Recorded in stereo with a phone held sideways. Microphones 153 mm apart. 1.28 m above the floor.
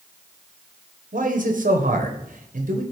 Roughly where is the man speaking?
Right.